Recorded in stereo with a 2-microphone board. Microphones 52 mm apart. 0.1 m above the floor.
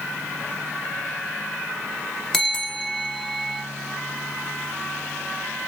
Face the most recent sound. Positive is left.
turn(degrees=10)  # may be behind; listen again after turning